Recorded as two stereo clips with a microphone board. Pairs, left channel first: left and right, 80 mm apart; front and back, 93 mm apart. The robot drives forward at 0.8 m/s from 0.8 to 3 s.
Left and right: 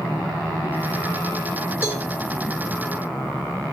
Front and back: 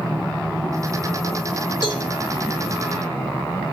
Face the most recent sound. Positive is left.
turn(degrees=35)